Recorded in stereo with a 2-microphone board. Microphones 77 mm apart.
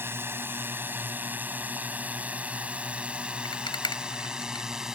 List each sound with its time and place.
0.0 s a drone: 30° right (ahead or behind); by 5.0 s 5° right (ahead or behind)
3.5 s a rattle: 85° left